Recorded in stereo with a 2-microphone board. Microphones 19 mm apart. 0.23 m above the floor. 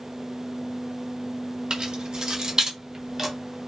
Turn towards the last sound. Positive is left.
turn(degrees=-15)  # may be behind; listen again after turning